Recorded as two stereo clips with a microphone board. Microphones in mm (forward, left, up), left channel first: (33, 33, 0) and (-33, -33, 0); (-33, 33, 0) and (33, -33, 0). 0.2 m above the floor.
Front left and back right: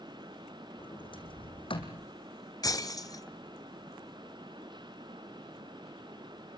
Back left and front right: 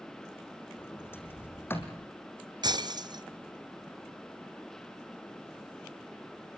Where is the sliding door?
70° left, 3.5 m.